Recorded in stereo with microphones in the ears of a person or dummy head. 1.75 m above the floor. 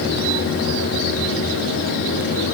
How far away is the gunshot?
No gunshot in this recording.